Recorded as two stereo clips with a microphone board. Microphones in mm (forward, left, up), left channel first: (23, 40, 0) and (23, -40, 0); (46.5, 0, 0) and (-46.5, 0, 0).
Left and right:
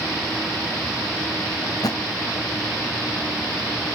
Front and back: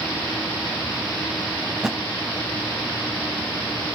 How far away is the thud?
About 0.5 m.